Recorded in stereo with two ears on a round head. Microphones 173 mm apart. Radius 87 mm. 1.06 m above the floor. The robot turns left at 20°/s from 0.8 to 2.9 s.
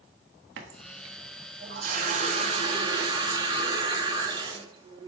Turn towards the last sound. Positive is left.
turn(degrees=-155)